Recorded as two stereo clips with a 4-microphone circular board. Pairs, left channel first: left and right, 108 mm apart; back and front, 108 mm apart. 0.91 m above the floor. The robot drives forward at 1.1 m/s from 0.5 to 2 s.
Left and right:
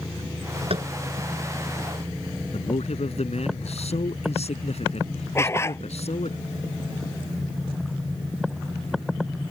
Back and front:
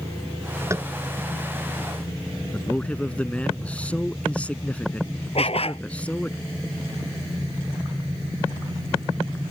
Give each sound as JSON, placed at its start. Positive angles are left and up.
{"t": 0.7, "sound": "tapping", "azimuth_deg": -65}
{"t": 2.5, "sound": "a man speaking", "azimuth_deg": 100}
{"t": 5.3, "sound": "a dog barking", "azimuth_deg": 155}